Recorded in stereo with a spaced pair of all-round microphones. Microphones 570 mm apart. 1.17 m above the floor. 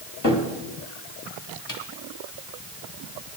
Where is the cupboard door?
35° left (ahead or behind), 2.0 m.